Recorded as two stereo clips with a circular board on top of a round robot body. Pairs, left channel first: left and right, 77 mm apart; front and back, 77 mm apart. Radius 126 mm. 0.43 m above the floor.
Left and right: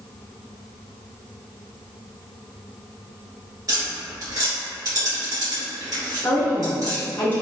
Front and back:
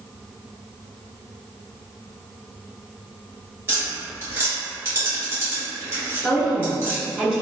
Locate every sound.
3.7 s tapping: 125° right, 1.9 m
6.2 s a woman speaking: 115° left, 0.8 m